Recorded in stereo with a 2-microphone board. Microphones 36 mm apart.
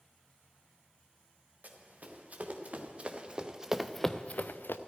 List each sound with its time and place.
1.6 s running footsteps: 40° right (ahead or behind), 3 m; by 4.8 s 80° left, 0.8 m